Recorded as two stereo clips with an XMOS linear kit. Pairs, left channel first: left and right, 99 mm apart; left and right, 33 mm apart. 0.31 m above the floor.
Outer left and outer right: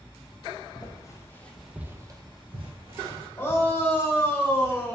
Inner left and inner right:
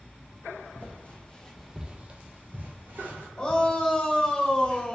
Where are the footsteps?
45° left (ahead or behind), 1.1 m; by 3.3 s 75° right (ahead or behind), 1.6 m.